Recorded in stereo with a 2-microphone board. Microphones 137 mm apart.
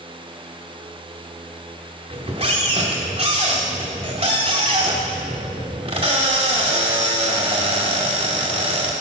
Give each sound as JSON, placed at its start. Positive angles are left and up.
{"t": 2.1, "sound": "a squeak", "side_deg": -50, "distance_m": 1.2}